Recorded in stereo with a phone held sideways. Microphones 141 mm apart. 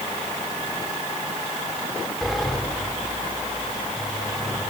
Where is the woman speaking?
I don't hear a woman speaking.